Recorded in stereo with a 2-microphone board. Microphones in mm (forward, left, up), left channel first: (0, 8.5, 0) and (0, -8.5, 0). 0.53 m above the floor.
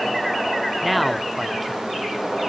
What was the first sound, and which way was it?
A man speaking, 5° right (ahead or behind).